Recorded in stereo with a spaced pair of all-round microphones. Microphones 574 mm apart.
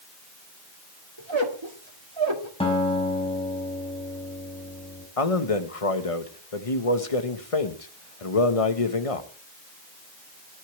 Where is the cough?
No cough in this recording.